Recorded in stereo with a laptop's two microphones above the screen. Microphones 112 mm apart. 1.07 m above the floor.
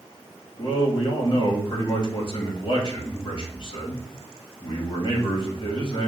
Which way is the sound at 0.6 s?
45° left (ahead or behind).